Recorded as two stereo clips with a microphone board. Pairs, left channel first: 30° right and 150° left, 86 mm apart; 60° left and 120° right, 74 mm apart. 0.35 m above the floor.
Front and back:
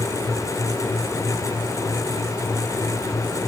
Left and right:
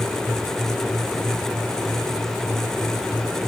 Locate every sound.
Only background noise.